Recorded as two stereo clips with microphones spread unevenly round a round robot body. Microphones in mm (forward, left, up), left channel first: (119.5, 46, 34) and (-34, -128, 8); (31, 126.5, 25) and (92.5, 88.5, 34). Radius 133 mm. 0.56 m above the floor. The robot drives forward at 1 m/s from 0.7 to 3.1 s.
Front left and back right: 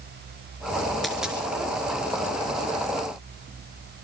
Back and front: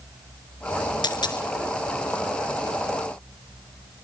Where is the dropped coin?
140° left, 3 m; by 1.5 s 145° left, 3.5 m.